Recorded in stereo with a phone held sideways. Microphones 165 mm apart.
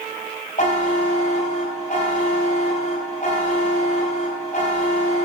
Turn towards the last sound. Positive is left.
turn(degrees=50)  # may be behind; listen again after turning